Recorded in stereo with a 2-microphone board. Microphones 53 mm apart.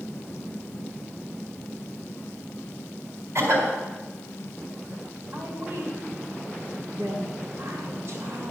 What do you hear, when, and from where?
3.4 s a cough: 60° right (ahead or behind), 4 m
5.3 s a woman speaking: 50° right (ahead or behind), 2 m